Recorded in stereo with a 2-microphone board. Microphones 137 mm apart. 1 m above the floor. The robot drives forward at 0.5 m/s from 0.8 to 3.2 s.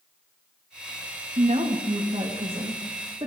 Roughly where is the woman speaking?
Right.